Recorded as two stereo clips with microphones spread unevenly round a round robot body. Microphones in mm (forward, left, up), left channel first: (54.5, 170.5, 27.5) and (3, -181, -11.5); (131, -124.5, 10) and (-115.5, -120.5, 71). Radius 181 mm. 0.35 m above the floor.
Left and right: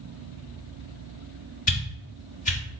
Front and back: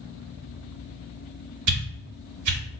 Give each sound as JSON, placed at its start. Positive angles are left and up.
{"t": 1.7, "sound": "a whoosh", "azimuth_deg": 155, "distance_m": 0.9}